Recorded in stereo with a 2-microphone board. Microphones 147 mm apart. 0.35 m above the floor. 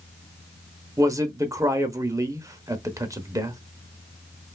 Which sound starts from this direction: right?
A man speaking, at 1.0 s.